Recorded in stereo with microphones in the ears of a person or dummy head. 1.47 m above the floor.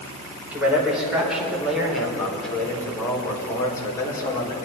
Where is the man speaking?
10° right (ahead or behind), 4.5 m; by 4.5 s 30° left (ahead or behind), 3.5 m.